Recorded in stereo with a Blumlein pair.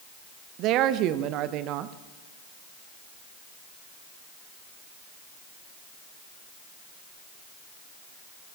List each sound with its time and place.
0.6 s a woman speaking: 35° right, 0.8 m